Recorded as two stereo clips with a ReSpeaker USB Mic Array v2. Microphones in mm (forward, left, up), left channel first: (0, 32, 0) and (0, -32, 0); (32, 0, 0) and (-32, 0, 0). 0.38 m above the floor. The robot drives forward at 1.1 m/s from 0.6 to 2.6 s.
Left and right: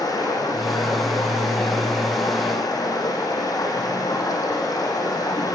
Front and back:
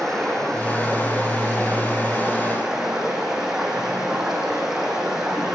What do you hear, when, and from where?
0.0 s running water: 85° left, 10 m; by 5.5 s 95° left, 10 m